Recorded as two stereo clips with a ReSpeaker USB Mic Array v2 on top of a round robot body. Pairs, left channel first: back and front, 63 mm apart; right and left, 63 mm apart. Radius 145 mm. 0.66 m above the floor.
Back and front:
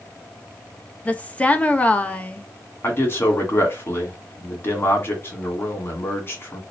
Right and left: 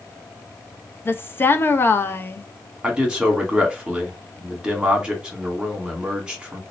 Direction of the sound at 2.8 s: 160° left.